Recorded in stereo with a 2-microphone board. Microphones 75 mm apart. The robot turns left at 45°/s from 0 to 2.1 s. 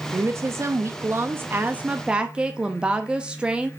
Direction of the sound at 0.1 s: 65° right.